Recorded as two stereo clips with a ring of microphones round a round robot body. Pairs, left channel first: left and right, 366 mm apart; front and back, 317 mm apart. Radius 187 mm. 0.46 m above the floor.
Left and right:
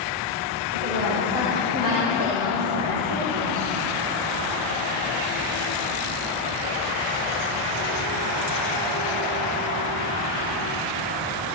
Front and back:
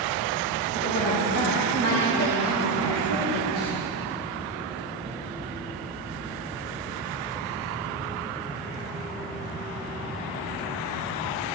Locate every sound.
0.7 s a woman speaking: 40° right, 2.5 m